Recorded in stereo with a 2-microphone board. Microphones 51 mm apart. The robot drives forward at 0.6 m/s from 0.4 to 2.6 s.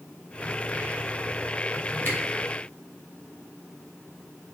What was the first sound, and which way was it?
A camera shutter, 45° left (ahead or behind).